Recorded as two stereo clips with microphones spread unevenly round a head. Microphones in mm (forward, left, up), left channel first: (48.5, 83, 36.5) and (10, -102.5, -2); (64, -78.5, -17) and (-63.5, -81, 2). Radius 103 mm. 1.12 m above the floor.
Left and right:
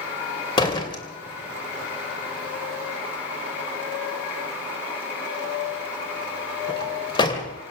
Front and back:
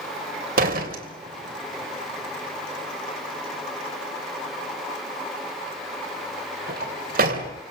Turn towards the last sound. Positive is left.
turn(degrees=150)